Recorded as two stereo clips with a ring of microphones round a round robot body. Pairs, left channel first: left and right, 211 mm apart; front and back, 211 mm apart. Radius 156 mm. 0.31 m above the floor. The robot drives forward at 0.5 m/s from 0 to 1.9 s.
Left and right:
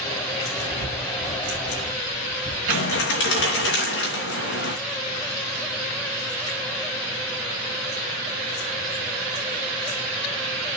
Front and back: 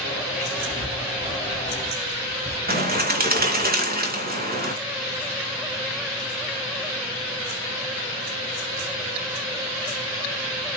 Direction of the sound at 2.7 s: 135° left.